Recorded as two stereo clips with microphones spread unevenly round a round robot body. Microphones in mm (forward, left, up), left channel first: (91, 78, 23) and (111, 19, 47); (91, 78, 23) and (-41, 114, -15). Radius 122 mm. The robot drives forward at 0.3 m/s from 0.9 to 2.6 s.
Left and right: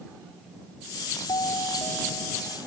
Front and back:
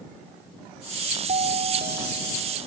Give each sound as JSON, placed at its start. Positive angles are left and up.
{"t": 1.3, "sound": "a doorbell", "azimuth_deg": 135}